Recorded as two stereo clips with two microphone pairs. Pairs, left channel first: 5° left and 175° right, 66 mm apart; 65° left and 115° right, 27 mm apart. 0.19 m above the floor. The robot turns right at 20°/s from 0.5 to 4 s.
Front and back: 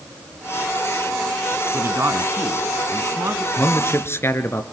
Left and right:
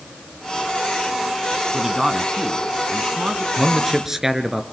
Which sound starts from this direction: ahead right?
A man speaking, at 3.6 s.